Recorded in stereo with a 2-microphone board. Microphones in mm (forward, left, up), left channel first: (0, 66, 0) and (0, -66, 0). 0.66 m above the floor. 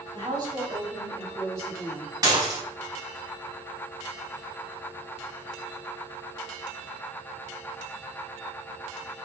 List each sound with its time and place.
0.1 s a woman speaking: 40° right (ahead or behind), 4 m; by 2.1 s 20° right (ahead or behind), 5 m
2.2 s dishes clattering: 25° right (ahead or behind), 2.5 m